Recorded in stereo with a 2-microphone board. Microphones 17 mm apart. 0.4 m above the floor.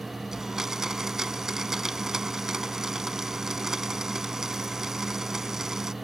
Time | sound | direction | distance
0.3 | a blender | 25° right (ahead or behind) | ?